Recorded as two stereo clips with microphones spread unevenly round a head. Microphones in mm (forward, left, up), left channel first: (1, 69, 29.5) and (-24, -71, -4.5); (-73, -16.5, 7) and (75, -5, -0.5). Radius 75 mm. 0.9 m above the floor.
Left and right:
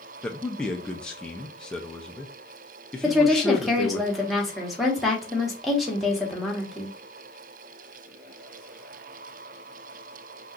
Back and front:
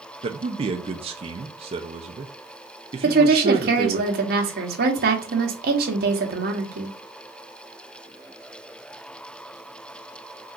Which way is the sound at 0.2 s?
20° right.